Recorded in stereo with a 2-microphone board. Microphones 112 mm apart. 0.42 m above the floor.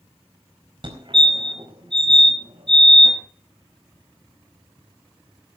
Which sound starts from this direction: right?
A fire alarm, at 0.8 s.